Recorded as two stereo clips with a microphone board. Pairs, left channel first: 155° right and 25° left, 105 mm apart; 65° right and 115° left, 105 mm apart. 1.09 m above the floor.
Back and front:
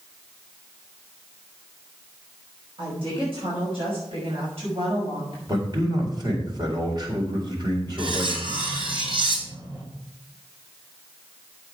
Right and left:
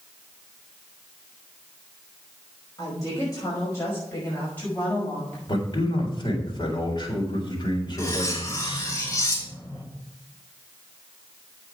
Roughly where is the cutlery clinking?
Ahead.